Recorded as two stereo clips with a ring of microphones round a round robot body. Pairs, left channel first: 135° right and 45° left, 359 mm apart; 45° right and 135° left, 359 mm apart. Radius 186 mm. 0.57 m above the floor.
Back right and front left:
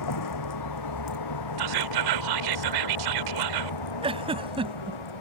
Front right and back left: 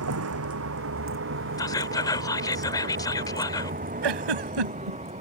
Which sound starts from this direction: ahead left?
Whispering, at 1.6 s.